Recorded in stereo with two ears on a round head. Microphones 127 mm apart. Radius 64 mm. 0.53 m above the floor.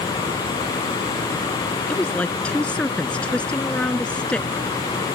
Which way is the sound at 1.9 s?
10° left (ahead or behind).